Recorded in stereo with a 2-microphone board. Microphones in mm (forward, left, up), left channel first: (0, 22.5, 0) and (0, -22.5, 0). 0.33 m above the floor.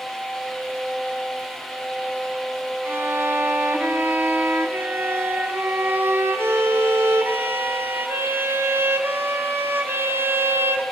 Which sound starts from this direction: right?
A violin, at 2.9 s.